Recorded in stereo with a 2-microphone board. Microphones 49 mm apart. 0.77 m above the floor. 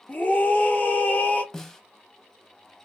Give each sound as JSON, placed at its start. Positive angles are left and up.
{"t": 0.1, "sound": "a scream", "side_deg": 40, "distance_m": 1.2}
{"t": 1.5, "sound": "a snare drum", "side_deg": 10, "distance_m": 0.6}